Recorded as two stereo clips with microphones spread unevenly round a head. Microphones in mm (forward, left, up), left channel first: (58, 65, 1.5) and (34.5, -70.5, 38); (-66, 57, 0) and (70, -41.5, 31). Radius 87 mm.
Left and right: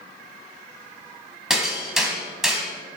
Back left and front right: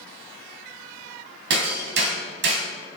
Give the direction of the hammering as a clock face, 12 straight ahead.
1 o'clock.